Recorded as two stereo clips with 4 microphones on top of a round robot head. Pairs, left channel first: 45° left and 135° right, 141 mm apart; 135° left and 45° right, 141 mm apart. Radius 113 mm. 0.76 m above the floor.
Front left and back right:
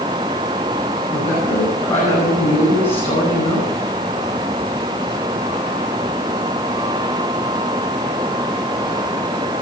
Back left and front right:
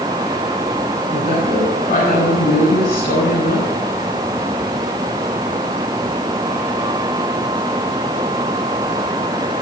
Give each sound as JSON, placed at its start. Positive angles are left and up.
{"t": 1.1, "sound": "a woman speaking", "azimuth_deg": 90, "distance_m": 6.5}